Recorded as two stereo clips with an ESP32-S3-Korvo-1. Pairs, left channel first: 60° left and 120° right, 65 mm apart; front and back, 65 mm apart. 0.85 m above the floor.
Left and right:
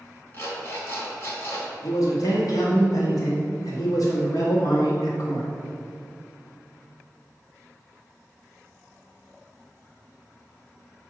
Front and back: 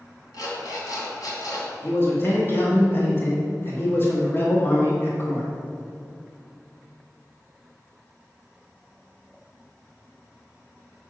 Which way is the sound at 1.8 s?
50° left.